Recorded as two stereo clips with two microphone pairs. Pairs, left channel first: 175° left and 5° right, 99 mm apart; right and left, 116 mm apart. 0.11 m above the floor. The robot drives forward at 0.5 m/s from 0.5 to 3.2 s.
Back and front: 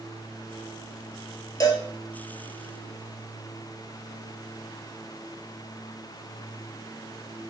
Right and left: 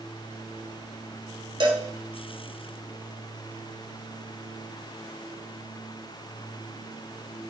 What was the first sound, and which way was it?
A cowbell, 130° left.